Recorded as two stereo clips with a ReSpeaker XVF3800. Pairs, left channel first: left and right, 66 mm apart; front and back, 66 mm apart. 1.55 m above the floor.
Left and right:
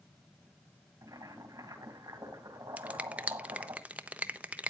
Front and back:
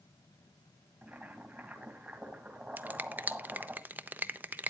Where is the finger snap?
140° right, 0.6 m.